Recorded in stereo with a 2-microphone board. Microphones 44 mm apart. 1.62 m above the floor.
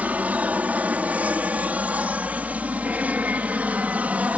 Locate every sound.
0.0 s an aircraft: 35° right (ahead or behind)